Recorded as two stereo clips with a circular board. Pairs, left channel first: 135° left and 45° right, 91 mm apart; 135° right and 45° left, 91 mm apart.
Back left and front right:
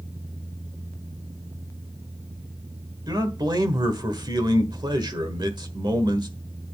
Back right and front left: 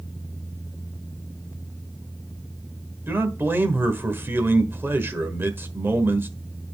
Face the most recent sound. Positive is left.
turn(degrees=-20)